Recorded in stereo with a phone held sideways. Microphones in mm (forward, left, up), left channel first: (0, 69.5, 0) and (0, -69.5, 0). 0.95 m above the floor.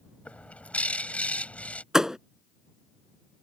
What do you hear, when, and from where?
0.2 s a bird: 10° left (ahead or behind)
1.9 s a thud: 5° right (ahead or behind)